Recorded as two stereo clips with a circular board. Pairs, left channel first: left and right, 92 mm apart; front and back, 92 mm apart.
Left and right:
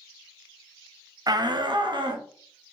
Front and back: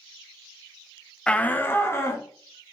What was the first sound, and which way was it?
A shout, 75° right.